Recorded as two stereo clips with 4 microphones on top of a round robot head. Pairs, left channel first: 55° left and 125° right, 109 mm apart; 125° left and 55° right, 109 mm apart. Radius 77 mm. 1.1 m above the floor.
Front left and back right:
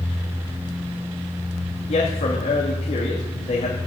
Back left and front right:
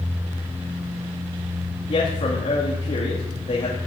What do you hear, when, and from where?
1.9 s a man speaking: 85° left, 2.5 m